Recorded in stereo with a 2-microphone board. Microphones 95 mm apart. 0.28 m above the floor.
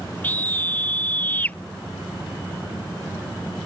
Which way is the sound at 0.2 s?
20° left (ahead or behind).